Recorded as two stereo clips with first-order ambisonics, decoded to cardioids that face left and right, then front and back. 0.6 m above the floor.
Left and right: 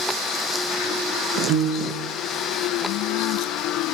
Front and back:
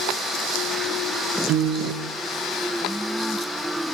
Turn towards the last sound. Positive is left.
turn(degrees=-135)